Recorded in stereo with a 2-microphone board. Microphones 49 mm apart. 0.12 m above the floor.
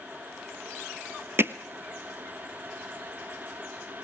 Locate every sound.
1.4 s hammering: 50° right (ahead or behind), 0.8 m